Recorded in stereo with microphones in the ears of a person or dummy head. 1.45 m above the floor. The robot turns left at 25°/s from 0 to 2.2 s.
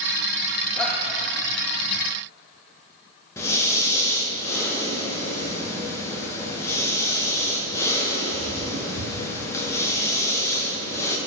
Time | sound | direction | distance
0.8 | a shout | 5° left (ahead or behind) | 2 m
3.4 | breathing | 15° left (ahead or behind) | 2 m